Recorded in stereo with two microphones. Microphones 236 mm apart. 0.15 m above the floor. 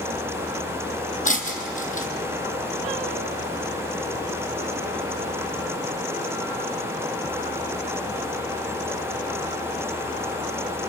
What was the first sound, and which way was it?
Breaking glass, 35° left (ahead or behind).